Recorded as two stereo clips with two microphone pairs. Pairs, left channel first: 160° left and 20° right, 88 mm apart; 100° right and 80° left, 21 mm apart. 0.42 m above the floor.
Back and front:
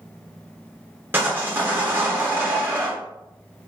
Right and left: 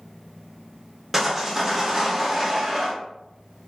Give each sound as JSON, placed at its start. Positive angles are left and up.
{"t": 1.1, "sound": "sawing", "azimuth_deg": 15, "distance_m": 0.8}